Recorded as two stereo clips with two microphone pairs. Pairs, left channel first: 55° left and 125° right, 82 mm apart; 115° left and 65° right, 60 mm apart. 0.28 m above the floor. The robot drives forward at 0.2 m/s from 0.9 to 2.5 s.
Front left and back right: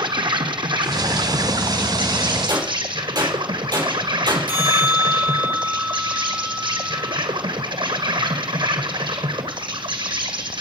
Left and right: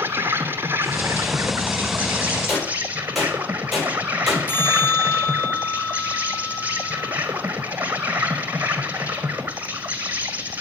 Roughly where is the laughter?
No laughter in this recording.